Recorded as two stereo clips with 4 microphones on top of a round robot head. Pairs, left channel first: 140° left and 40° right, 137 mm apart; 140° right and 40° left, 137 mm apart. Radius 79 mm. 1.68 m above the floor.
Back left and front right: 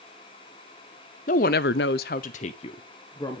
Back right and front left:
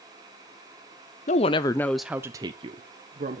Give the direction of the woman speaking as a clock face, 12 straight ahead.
6 o'clock.